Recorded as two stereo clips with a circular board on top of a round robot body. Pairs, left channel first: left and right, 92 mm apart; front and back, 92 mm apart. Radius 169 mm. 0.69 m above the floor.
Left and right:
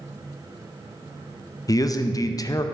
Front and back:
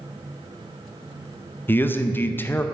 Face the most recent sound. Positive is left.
turn(degrees=60)